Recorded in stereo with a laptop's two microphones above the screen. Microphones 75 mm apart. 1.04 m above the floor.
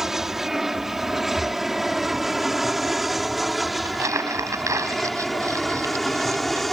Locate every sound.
0.0 s an aircraft: 5° right (ahead or behind); by 6.7 s centre (ahead or behind)
1.4 s breathing: 5° right (ahead or behind)
3.9 s crumpling: 45° right (ahead or behind)